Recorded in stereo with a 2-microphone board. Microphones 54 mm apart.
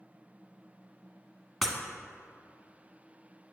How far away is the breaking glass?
About 1.2 m.